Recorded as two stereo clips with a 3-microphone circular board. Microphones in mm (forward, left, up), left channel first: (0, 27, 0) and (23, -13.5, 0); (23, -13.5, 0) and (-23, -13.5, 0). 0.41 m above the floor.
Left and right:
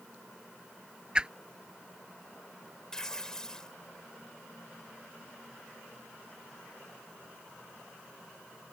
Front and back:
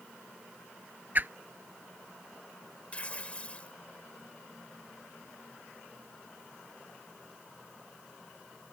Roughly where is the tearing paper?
Ahead left.